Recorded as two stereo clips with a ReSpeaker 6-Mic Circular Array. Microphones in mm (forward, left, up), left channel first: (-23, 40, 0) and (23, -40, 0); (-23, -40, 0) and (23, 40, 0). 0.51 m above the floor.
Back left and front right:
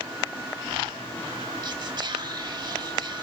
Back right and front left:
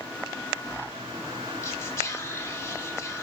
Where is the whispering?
65° right, 1.1 m.